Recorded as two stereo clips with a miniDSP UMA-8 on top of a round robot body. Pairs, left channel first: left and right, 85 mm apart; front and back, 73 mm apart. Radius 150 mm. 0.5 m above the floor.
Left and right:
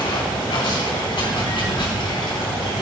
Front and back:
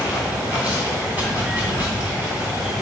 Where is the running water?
110° left, 3 m.